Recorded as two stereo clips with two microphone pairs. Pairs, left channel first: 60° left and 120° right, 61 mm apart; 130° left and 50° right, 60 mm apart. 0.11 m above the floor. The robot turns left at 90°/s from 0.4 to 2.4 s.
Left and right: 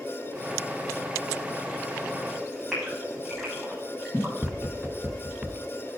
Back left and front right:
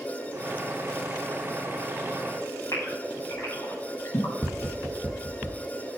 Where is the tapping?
85° right, 1.7 m.